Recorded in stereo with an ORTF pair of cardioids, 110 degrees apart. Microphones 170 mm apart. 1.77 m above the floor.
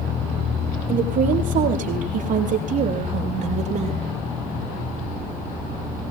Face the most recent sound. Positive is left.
turn(degrees=-40)